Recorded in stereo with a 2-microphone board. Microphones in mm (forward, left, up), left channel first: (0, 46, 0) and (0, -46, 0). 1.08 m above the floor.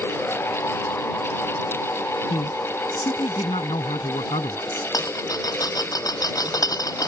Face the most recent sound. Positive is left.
turn(degrees=40)  # may be behind; listen again after turning